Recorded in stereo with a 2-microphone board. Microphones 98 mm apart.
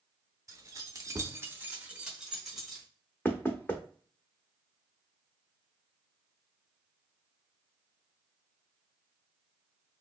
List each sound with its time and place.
0.5 s keys jangling: 35° right (ahead or behind), 0.8 m; by 2.9 s centre (ahead or behind), 1.4 m
3.2 s knocking: 20° left (ahead or behind), 0.7 m